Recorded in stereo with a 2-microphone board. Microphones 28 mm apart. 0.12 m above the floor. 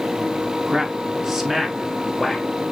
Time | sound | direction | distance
0.7 | a man speaking | 30° right (ahead or behind) | 1.3 m